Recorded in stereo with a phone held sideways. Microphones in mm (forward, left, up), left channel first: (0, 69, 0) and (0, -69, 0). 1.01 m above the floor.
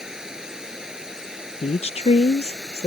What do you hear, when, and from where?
0.0 s running water: 5° right (ahead or behind)
1.6 s a woman speaking: 50° left (ahead or behind)